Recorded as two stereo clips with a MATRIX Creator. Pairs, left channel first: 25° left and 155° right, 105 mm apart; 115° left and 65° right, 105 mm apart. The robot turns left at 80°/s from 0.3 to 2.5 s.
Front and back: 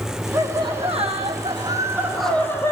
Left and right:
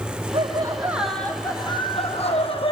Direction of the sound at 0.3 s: 100° right.